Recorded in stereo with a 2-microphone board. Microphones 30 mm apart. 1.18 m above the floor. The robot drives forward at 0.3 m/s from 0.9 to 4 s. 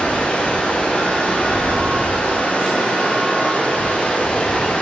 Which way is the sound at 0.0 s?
55° left (ahead or behind).